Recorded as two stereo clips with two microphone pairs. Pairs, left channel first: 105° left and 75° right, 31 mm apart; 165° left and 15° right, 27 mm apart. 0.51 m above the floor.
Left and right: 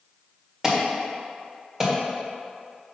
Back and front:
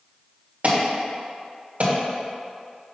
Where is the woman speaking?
No woman speaking in this recording.